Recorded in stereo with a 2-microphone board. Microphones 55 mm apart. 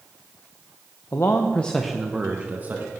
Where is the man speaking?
60° left (ahead or behind), 0.8 m; by 2.9 s 35° right (ahead or behind), 1.5 m.